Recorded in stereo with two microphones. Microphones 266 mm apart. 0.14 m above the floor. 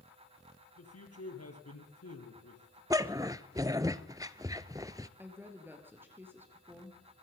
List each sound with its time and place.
0.8 s a man speaking: 65° left (ahead or behind), 4 m
2.9 s a dog barking: 15° right (ahead or behind), 0.7 m
5.2 s a woman speaking: 10° right (ahead or behind), 2.5 m